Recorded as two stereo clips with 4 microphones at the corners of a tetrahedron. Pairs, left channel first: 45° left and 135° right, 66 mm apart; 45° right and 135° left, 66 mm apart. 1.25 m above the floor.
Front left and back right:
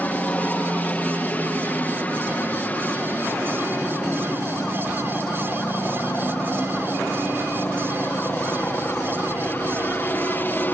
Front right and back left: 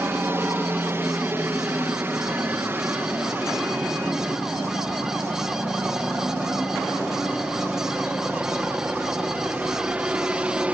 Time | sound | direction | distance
0.0 | a helicopter | 100° left | ?